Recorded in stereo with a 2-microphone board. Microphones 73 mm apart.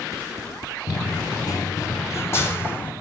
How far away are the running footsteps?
About 0.7 m.